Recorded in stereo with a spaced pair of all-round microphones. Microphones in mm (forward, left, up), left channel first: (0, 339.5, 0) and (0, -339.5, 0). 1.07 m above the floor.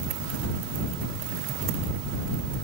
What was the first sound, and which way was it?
Only background noise.